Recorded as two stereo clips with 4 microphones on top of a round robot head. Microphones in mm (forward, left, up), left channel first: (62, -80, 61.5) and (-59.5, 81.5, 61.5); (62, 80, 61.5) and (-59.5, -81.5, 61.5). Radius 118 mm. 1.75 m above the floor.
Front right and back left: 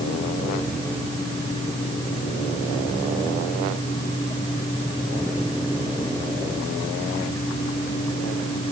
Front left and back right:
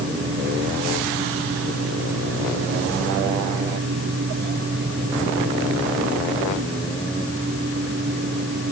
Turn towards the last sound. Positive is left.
No sound to turn to.